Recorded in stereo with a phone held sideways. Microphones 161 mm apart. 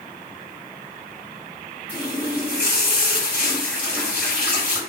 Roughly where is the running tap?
Centre.